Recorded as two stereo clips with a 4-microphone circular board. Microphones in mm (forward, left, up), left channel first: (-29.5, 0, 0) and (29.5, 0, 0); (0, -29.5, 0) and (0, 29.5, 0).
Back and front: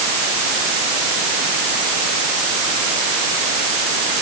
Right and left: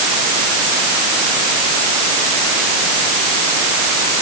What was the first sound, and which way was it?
Only background noise.